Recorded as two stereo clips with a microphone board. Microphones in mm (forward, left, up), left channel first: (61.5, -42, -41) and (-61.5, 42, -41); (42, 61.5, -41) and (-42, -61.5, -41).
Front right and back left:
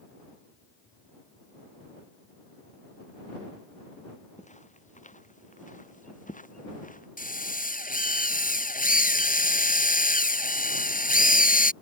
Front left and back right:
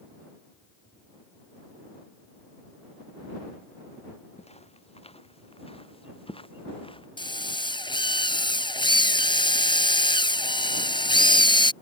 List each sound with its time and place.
4.4 s footsteps: 5° left; by 7.1 s straight ahead
7.2 s a drill: 5° right